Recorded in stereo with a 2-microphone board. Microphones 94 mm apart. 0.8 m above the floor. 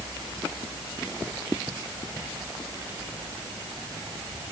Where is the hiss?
No hiss in this recording.